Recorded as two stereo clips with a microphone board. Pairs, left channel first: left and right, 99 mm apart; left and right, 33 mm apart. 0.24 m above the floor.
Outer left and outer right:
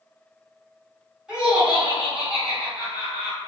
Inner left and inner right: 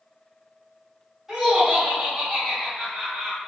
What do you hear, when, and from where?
1.3 s laughter: 10° right (ahead or behind), 1.7 m